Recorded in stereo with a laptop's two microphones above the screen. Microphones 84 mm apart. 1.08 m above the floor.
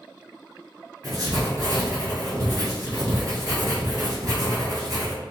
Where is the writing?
50° right (ahead or behind), 1.7 m.